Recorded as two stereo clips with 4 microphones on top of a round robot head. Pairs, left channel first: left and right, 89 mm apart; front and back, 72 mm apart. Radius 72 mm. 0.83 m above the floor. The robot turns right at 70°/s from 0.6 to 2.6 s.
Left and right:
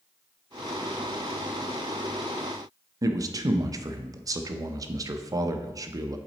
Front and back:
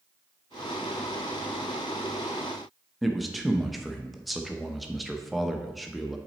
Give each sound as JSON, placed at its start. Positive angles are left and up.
{"t": 3.0, "sound": "a man speaking", "azimuth_deg": -90, "distance_m": 0.6}